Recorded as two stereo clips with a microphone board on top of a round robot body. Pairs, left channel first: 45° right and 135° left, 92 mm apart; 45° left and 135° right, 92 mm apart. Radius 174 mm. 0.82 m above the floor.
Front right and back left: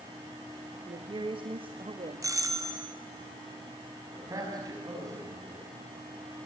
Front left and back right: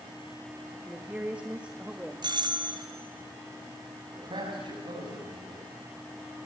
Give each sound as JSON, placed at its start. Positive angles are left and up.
{"t": 0.9, "sound": "a woman speaking", "azimuth_deg": 150, "distance_m": 1.8}
{"t": 2.2, "sound": "a doorbell", "azimuth_deg": -170, "distance_m": 3.5}
{"t": 4.1, "sound": "a man speaking", "azimuth_deg": -170, "distance_m": 6.0}